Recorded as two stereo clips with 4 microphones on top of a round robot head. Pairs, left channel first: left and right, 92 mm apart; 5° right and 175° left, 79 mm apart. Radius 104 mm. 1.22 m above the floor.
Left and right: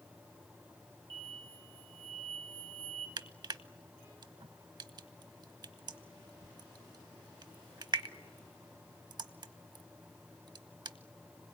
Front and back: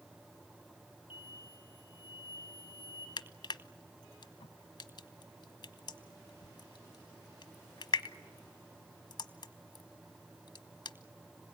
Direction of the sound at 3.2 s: 45° right.